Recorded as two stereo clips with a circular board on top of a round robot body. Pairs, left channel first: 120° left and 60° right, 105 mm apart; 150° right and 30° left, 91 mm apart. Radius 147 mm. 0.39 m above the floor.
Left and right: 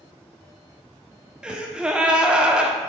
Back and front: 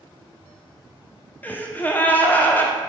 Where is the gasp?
125° right, 1.4 m.